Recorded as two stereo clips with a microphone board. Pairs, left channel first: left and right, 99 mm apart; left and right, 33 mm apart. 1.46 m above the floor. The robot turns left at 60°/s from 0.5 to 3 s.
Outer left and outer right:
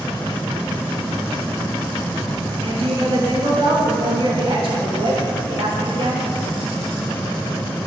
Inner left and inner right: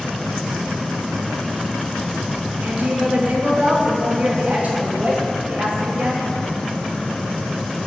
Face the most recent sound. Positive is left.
turn(degrees=-60)  # may be behind; listen again after turning